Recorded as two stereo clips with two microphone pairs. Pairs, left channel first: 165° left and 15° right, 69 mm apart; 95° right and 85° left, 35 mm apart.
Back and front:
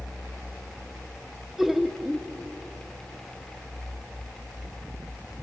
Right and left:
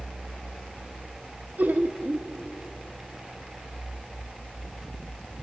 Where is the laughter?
70° left, 1.1 m.